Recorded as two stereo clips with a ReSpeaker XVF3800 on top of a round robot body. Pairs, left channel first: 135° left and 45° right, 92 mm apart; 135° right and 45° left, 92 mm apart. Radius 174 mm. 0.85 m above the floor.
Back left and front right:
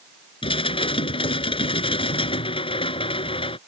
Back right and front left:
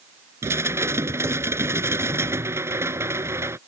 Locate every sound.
0.4 s dishes clattering: 110° left